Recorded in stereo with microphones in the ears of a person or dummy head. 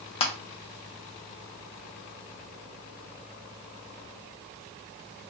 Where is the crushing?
30° left (ahead or behind), 0.6 m.